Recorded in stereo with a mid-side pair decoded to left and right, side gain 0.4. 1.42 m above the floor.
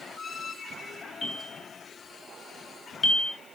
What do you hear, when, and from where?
1.2 s a bell: 45° left, 2.5 m